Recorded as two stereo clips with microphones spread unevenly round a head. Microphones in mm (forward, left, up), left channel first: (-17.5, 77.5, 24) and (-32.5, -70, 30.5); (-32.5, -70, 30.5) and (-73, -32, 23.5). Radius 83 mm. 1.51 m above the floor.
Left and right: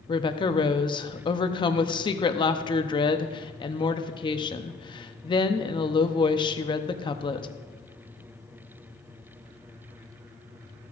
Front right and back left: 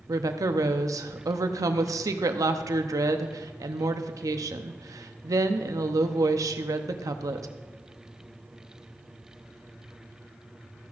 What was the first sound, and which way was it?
A woman speaking, 145° left.